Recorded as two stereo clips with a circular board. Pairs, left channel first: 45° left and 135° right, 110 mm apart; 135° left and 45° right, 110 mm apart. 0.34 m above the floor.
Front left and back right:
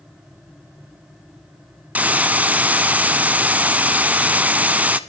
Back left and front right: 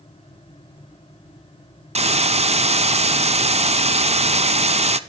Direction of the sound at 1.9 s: 60° right.